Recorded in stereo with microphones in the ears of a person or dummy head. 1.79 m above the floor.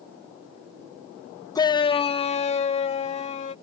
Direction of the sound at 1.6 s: 20° left (ahead or behind).